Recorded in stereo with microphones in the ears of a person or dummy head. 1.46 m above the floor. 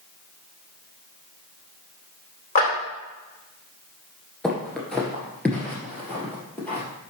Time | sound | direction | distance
2.5 | a clap | 40° left (ahead or behind) | 3.5 m
4.4 | footsteps | 5° left (ahead or behind) | 1.5 m